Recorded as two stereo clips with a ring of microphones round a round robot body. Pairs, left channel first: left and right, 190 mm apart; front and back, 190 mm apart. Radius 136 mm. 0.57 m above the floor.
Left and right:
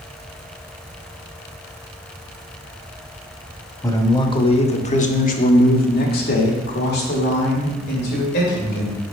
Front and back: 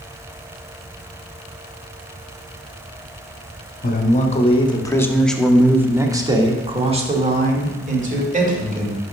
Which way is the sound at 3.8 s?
20° left.